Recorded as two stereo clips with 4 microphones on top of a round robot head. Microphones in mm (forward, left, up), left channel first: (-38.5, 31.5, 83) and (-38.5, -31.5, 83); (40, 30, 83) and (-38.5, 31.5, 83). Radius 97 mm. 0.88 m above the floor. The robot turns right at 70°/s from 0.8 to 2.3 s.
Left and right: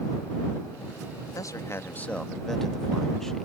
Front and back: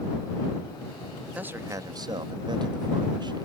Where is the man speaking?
110° left; by 3.5 s 175° left.